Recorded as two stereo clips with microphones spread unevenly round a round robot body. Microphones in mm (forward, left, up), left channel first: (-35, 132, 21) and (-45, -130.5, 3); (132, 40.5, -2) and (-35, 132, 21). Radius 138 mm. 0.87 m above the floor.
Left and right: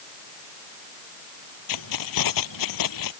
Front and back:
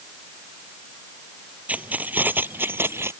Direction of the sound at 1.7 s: 70° left.